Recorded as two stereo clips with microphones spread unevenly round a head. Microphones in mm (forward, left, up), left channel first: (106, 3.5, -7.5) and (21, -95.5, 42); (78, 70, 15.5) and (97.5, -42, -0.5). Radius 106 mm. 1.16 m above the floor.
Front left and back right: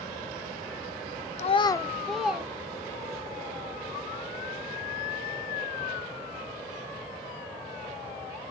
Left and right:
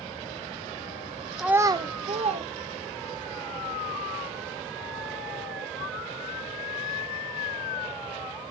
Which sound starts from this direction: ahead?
A child speaking, at 1.4 s.